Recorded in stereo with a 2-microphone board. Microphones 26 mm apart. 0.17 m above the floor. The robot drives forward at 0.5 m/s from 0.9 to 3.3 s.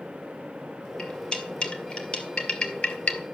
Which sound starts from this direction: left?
Cutlery clinking, at 1.0 s.